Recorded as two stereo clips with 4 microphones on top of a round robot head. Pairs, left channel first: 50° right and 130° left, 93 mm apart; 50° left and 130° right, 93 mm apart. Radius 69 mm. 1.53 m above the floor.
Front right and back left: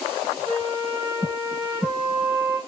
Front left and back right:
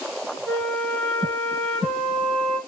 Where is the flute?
135° left, 0.9 m.